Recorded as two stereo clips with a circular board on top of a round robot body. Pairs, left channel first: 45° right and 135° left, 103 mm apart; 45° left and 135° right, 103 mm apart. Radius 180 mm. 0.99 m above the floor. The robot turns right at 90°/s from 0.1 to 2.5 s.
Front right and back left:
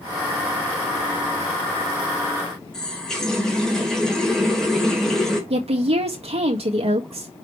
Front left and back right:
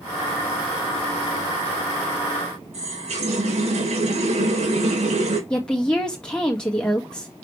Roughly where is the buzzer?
No buzzer in this recording.